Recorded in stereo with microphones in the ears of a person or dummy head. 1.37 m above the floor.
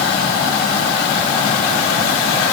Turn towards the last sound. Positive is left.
No sound to turn to.